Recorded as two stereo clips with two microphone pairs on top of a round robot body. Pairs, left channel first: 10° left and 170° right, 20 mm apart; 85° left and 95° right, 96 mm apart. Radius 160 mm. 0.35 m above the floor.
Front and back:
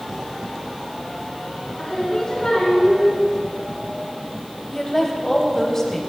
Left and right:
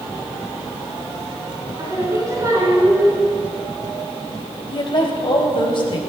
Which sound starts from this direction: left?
A woman speaking, at 4.7 s.